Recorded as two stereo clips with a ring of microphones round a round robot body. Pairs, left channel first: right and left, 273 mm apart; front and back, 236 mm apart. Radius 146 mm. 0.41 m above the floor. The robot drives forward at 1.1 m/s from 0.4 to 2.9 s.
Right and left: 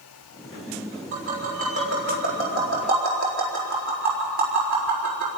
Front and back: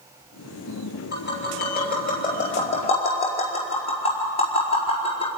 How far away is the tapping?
About 5.5 m.